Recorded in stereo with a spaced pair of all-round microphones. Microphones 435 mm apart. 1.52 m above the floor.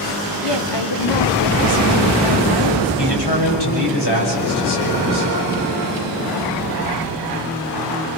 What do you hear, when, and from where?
0.4 s a woman speaking: 70° left (ahead or behind), 1.5 m
3.0 s a man speaking: 65° left (ahead or behind), 6.5 m